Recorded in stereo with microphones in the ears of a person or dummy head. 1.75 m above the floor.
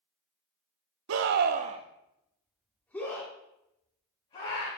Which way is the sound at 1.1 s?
75° right (ahead or behind).